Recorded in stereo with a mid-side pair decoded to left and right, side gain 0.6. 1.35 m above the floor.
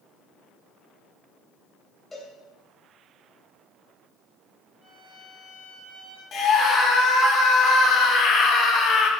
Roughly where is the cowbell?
Ahead.